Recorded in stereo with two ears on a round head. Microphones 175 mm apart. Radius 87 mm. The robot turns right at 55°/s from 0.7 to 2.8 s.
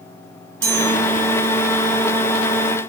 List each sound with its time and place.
0.6 s a chime: 70° right (ahead or behind), 5 m; by 0.9 s 80° right, 5 m